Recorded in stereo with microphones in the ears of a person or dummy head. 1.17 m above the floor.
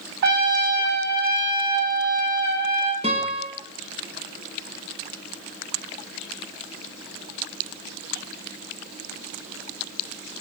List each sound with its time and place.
0.2 s a trumpet: 60° right (ahead or behind), 1.6 m
3.0 s a guitar: 35° right (ahead or behind), 1.6 m